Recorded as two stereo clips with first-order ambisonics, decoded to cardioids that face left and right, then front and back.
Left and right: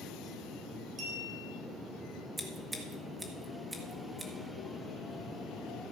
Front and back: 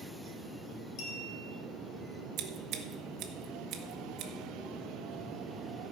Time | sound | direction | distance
1.0 | a clink | 20° right | 3.5 m
2.4 | scissors | 170° right | 1.1 m